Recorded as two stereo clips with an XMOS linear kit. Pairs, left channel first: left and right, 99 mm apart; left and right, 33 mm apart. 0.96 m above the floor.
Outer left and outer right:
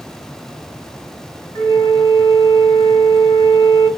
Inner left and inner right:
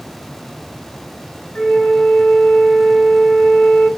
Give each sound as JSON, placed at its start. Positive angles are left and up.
{"t": 1.6, "sound": "a flute", "side_deg": 35, "distance_m": 7.5}